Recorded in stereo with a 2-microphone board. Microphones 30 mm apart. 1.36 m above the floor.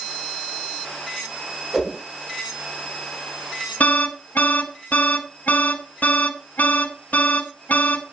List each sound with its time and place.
1.7 s a whoosh: 20° right (ahead or behind), 7 m
3.8 s an alarm: 60° left (ahead or behind), 3 m